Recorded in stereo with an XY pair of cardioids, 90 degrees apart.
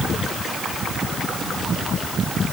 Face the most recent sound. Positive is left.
No sound to turn to.